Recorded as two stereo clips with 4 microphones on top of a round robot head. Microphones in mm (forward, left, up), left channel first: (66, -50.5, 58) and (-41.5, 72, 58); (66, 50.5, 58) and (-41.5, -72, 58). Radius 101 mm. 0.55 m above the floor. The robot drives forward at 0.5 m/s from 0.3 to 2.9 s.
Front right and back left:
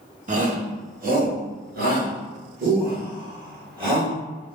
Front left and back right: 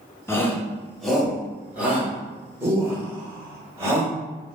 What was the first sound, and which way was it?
A shout, 120° left.